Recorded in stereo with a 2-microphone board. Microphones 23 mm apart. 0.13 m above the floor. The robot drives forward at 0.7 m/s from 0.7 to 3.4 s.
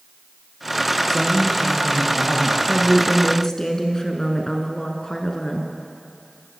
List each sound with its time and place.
1.1 s a man speaking: 20° left (ahead or behind), 3 m; by 2.6 s 15° left (ahead or behind), 4 m
2.7 s a woman speaking: 25° left (ahead or behind), 1.2 m